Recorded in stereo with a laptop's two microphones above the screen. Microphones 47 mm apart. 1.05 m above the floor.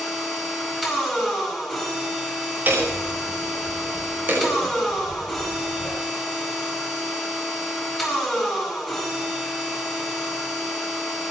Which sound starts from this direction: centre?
A machine running, at 0.0 s.